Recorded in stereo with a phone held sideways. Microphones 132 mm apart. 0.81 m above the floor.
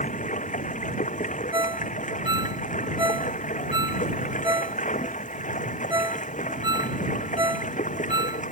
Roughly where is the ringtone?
Right.